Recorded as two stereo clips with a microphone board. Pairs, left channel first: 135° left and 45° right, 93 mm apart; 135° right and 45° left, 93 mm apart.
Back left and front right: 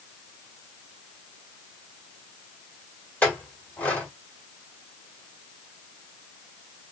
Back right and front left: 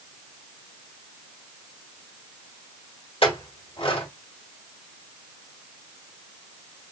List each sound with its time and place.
3.2 s a clink: 150° right, 1.7 m